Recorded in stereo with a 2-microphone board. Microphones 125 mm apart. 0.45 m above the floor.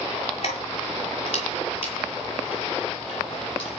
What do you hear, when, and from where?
0.4 s keys jangling: 50° left (ahead or behind), 6.5 m; by 3.8 s 45° left (ahead or behind), 10 m